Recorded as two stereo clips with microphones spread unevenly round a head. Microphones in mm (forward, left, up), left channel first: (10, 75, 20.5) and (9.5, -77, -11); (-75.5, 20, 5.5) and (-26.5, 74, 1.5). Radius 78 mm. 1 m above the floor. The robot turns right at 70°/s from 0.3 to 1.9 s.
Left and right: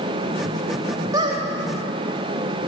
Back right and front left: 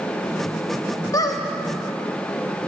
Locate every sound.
1.1 s a squeak: 165° right, 0.6 m; by 1.4 s 145° right, 0.6 m